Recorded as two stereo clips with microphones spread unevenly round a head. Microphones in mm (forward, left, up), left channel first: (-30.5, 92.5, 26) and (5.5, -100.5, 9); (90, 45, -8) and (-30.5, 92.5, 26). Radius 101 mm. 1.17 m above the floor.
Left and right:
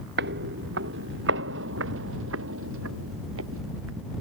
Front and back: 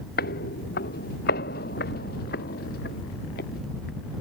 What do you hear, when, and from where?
0.2 s footsteps: 40° right; by 4.1 s 55° right